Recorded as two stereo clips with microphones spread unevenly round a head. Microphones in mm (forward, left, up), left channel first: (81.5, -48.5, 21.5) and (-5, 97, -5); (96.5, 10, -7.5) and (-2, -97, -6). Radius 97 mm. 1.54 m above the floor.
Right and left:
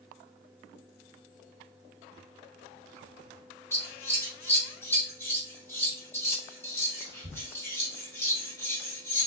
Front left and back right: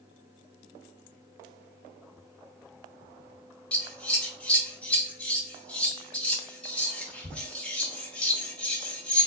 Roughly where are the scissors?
Ahead right.